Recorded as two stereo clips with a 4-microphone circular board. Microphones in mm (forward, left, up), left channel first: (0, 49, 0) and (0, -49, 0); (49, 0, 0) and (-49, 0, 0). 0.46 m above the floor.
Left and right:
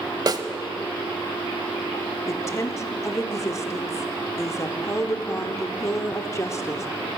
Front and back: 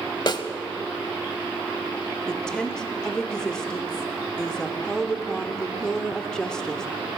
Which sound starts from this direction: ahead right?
A snare drum, at 0.3 s.